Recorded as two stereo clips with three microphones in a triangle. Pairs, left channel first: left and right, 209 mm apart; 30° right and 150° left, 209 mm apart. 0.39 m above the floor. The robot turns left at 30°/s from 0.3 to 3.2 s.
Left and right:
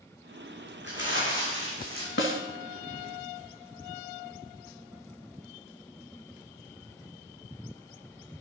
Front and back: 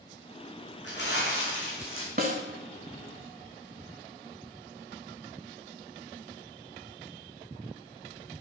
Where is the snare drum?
110° left, 0.9 m; by 2.4 s 100° left, 0.9 m.